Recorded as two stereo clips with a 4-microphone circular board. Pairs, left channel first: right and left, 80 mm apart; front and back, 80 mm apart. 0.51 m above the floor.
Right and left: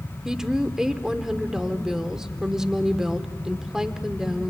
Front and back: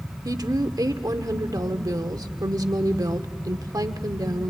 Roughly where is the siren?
No siren in this recording.